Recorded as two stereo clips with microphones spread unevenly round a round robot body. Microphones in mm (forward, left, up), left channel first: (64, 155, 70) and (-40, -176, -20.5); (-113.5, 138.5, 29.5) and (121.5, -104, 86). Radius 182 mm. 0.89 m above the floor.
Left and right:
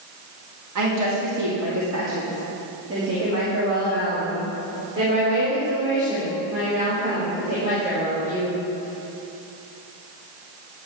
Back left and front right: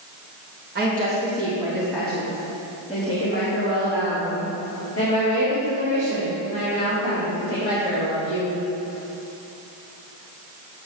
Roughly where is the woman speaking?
Right.